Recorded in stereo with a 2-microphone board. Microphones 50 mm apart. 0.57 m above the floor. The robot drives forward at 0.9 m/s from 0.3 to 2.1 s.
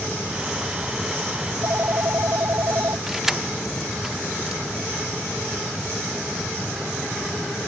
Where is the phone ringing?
60° right (ahead or behind); by 3.0 s 65° right (ahead or behind).